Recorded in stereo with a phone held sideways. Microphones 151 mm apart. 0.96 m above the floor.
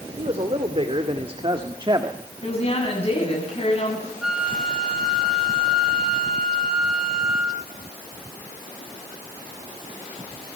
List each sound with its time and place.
0.2 s a man speaking: 45° right (ahead or behind), 2.5 m; by 2.2 s 30° right (ahead or behind), 1.4 m
2.4 s a woman speaking: 45° left (ahead or behind), 8 m
4.2 s a flute: 5° right (ahead or behind), 2.5 m